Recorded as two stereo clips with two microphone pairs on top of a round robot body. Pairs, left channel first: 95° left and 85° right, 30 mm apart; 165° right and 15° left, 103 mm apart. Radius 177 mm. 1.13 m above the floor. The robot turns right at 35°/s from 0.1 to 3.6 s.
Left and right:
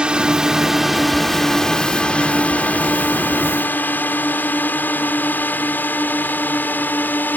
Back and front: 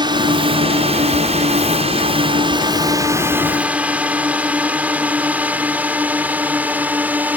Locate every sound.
0.0 s a drone: 30° right; by 7.4 s 90° left